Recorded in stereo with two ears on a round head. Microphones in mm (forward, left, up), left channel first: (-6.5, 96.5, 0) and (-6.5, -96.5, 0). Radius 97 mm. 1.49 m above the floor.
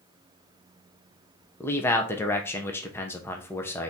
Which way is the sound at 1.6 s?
10° left (ahead or behind).